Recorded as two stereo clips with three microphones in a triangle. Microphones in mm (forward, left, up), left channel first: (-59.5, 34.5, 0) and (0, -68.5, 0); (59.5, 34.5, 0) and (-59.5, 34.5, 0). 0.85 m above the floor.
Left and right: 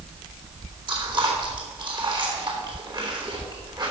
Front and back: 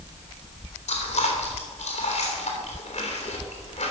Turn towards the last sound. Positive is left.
turn(degrees=-15)